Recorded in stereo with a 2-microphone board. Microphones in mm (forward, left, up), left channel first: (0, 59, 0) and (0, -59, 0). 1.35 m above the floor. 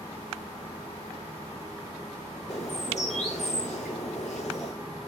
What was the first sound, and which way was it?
A bird, 80° left.